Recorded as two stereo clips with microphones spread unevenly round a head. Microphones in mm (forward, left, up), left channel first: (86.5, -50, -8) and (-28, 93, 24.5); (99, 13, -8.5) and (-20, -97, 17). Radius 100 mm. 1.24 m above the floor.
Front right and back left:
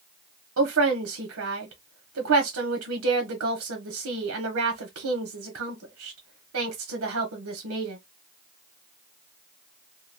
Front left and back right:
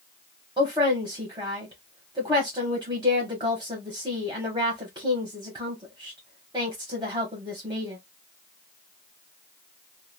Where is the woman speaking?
150° left, 0.8 m.